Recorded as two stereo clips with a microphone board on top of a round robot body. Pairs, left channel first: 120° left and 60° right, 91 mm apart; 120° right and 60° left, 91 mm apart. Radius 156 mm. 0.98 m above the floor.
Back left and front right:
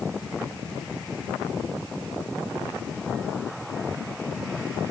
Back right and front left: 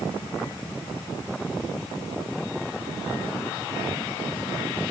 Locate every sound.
Only background noise.